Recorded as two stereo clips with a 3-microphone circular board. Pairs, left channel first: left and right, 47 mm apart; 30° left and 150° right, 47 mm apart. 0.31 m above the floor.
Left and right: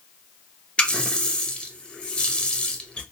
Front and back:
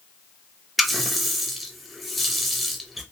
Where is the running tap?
120° left, 0.6 m.